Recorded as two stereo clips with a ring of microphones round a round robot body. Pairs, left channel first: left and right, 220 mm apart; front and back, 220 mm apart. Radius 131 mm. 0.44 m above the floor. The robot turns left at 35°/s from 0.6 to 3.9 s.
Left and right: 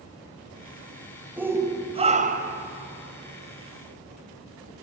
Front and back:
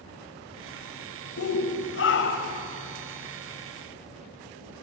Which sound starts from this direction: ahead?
A shout, at 1.4 s.